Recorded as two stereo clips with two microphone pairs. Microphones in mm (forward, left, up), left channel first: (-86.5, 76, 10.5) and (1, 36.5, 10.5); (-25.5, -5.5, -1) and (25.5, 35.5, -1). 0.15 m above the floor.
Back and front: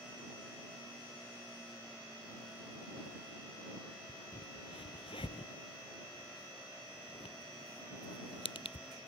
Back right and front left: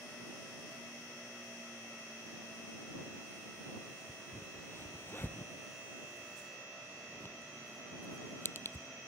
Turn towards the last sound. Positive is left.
turn(degrees=165)